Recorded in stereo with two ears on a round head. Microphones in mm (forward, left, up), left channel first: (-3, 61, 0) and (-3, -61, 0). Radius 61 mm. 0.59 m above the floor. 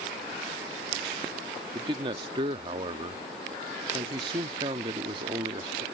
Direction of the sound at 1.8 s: 35° right (ahead or behind).